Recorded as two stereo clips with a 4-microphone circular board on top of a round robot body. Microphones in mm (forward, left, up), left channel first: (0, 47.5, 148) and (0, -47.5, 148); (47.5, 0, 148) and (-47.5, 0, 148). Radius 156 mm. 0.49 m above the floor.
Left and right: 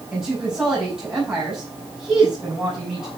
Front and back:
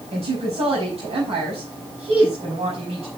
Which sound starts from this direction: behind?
A woman speaking, at 0.1 s.